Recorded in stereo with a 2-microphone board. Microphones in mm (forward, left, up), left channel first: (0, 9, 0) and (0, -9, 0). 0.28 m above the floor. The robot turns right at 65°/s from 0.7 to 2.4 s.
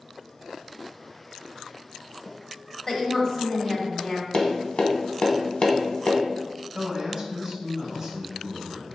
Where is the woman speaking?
25° left (ahead or behind), 1.0 m.